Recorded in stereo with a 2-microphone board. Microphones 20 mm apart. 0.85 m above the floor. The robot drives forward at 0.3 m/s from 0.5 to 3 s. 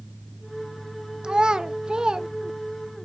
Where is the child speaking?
45° right (ahead or behind), 0.6 m.